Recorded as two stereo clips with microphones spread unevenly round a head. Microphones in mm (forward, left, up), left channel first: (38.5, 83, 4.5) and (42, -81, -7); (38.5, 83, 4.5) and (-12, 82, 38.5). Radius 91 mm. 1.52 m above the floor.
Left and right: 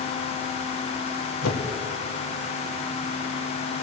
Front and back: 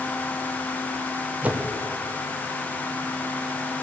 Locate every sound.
1.4 s a whoosh: 115° left, 1.3 m